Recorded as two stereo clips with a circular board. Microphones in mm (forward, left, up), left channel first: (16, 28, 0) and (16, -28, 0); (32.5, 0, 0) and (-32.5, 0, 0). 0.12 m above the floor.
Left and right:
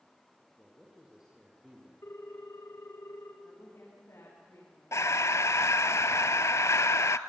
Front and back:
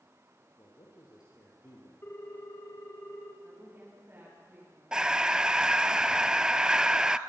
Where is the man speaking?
15° right, 5 m.